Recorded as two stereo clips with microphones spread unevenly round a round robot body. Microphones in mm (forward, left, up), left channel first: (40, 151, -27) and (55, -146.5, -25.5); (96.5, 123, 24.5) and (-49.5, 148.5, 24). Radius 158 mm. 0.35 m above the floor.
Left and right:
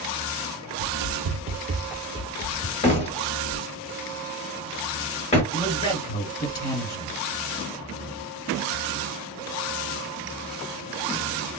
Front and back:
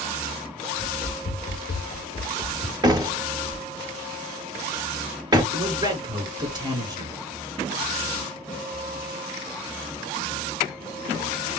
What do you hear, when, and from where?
0.8 s running footsteps: 70° right, 1.0 m; by 2.7 s 55° left, 0.8 m
2.8 s a door slam: 145° left, 1.0 m
5.5 s a man speaking: 135° left, 1.7 m